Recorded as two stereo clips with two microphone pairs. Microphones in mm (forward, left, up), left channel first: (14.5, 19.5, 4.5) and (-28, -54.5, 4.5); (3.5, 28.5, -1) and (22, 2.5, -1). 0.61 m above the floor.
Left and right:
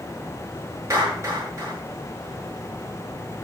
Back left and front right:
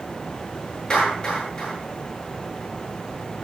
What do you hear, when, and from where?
0.9 s a clap: 175° right, 9 m